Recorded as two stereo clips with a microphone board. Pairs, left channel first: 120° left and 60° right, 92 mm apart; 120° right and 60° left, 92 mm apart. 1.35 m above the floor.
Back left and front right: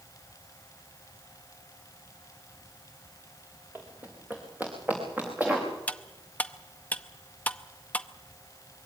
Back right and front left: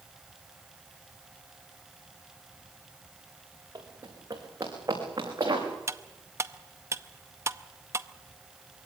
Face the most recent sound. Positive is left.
turn(degrees=65)